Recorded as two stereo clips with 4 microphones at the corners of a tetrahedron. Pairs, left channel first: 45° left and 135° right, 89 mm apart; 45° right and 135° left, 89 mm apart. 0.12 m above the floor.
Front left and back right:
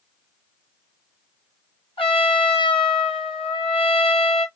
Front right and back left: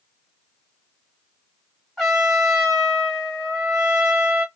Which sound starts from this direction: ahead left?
A trumpet, at 2.0 s.